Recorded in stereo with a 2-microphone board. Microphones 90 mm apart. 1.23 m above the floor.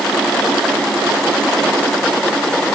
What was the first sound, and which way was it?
Only background noise.